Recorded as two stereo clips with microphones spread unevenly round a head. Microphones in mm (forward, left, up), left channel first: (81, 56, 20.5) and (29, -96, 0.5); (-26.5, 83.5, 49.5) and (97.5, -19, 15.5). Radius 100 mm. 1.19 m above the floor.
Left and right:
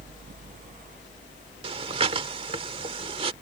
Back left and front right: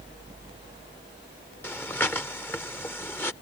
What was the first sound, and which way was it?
Breathing, 165° right.